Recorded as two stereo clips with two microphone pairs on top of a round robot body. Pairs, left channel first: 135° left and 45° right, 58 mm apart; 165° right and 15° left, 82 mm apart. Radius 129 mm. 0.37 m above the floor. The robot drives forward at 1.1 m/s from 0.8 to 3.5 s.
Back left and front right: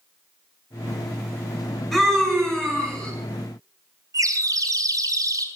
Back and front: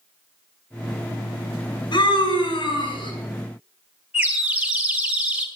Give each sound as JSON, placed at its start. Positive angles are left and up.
{"t": 1.9, "sound": "a scream", "azimuth_deg": -130, "distance_m": 5.5}
{"t": 4.1, "sound": "a bird", "azimuth_deg": -55, "distance_m": 3.5}